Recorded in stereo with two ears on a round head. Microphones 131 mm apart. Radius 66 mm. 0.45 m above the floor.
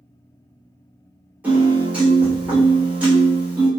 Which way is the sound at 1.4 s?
10° right (ahead or behind).